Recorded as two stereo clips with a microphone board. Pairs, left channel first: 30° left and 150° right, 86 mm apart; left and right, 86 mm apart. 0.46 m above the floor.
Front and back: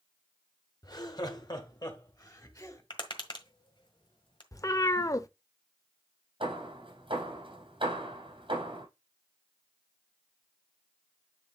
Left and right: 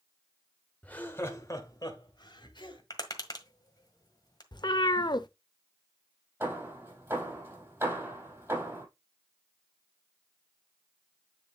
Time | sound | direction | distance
0.8 | laughter | 20° left | 1.7 m
2.9 | tapping | 50° left | 1.5 m
4.5 | a cat meowing | 75° left | 0.5 m
6.4 | hammering | 145° right | 3.5 m